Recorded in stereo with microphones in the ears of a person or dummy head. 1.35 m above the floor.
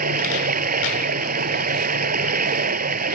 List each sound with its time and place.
0.0 s running water: 45° right (ahead or behind)